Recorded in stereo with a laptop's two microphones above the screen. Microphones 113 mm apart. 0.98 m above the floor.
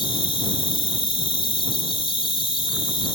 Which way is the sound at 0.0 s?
50° left (ahead or behind).